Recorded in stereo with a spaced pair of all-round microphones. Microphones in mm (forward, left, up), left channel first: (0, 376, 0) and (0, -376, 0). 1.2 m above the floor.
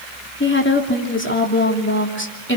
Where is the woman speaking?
15° left (ahead or behind), 3 m.